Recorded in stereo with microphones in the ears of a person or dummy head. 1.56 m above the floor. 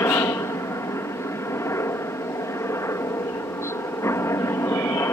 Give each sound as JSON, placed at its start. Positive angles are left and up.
{"t": 0.0, "sound": "a helicopter", "side_deg": 15}